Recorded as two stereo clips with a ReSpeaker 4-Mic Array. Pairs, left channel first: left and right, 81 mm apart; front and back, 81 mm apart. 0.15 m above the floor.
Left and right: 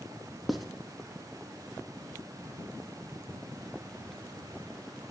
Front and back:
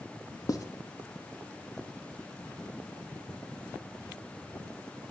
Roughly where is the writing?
Ahead.